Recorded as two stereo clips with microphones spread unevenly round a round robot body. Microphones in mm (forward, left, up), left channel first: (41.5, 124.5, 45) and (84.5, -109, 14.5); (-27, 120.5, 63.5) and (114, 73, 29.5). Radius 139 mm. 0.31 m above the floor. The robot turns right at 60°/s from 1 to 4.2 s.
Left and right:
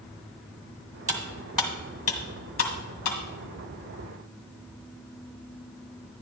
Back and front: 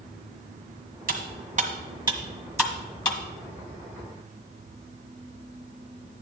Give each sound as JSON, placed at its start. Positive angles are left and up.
{"t": 1.1, "sound": "cutlery clinking", "azimuth_deg": -25, "distance_m": 1.8}